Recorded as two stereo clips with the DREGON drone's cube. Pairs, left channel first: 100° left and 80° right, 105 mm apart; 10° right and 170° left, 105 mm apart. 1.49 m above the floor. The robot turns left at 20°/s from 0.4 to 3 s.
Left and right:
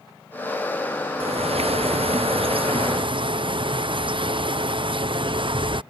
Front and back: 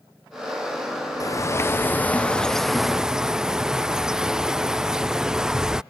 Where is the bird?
70° right; by 5.8 s 105° right.